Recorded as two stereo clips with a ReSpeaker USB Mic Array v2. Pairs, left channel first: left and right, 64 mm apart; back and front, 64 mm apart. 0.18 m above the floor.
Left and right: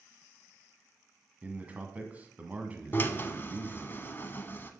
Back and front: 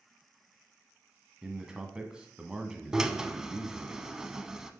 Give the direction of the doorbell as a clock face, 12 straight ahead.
I don't hear a doorbell.